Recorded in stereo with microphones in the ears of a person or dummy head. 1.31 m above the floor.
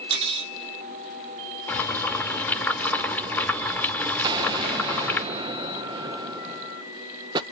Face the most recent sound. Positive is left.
turn(degrees=-25)  # may be behind; listen again after turning